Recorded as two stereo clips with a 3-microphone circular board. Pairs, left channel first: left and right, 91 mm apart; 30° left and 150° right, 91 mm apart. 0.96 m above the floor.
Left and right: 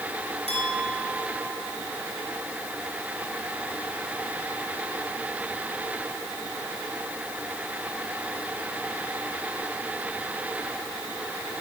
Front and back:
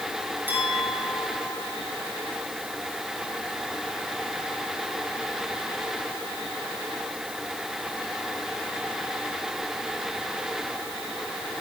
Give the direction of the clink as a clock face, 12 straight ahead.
3 o'clock.